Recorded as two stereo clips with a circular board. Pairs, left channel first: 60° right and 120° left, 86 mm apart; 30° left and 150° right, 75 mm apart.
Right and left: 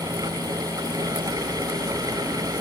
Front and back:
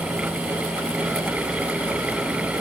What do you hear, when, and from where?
Only background noise.